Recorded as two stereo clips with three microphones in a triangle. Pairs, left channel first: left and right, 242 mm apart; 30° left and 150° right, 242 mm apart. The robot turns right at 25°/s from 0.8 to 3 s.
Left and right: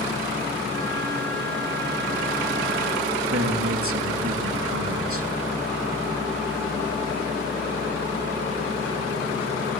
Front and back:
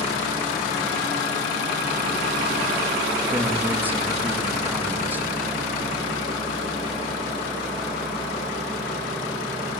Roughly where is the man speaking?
Right.